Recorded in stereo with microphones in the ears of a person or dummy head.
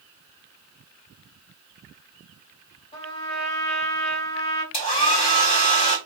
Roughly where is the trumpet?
Left.